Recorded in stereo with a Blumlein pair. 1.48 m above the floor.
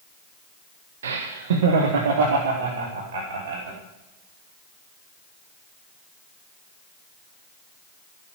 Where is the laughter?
65° right, 1.1 m; by 3.8 s 50° right, 4.5 m.